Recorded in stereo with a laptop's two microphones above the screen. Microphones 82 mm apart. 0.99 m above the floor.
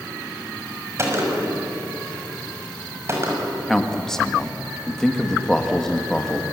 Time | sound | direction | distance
1.0 | a gunshot | 35° right (ahead or behind) | 6 m
3.7 | a man speaking | 5° left (ahead or behind) | 1.6 m